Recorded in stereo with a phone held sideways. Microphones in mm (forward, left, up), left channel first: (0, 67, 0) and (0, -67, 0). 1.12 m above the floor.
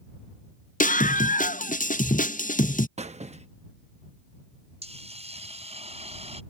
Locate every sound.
0.8 s a scream: 80° left
3.0 s a squeak: 55° right (ahead or behind)
4.8 s a hiss: 50° right (ahead or behind)